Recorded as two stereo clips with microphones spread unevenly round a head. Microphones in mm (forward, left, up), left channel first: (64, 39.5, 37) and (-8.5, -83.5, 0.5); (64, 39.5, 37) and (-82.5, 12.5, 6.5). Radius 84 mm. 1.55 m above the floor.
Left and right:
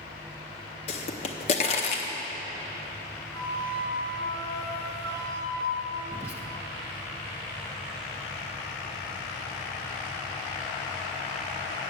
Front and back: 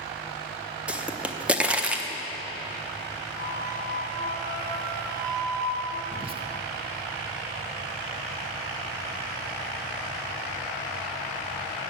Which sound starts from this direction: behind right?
A flute, at 3.3 s.